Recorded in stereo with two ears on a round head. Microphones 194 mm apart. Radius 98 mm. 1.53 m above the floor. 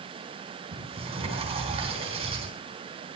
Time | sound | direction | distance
0.7 | a sliding door | 30° right (ahead or behind) | 3.5 m